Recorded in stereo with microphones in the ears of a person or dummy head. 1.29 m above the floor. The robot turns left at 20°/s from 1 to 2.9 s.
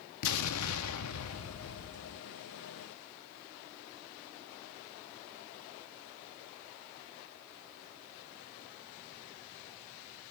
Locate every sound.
0.2 s an explosion: 85° left, 0.6 m; by 2.2 s 75° left (ahead or behind), 0.6 m